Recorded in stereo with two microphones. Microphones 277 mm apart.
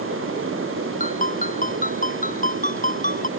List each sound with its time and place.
1.0 s a ringtone: 30° left (ahead or behind)